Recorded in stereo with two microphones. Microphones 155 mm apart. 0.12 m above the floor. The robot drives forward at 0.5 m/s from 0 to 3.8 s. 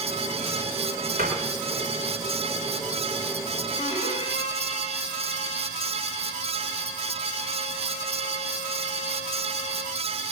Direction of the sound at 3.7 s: 40° left (ahead or behind).